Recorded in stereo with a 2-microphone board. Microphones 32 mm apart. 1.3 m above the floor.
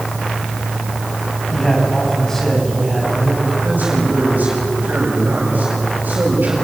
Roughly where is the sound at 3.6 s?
Right.